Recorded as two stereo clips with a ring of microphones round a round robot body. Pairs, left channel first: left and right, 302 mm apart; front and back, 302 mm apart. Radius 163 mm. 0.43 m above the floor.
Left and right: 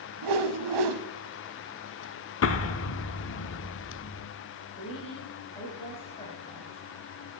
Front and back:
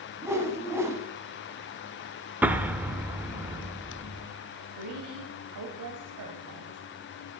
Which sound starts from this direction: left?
An explosion, at 2.4 s.